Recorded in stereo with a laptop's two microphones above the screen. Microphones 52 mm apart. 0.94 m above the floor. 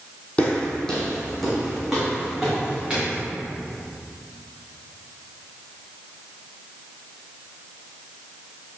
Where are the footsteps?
25° left (ahead or behind), 1.5 m; by 3.2 s 5° right (ahead or behind), 5 m.